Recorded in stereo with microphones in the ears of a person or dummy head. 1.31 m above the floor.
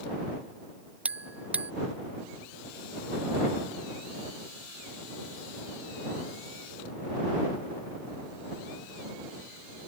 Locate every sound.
1.1 s a bell: 5° right (ahead or behind)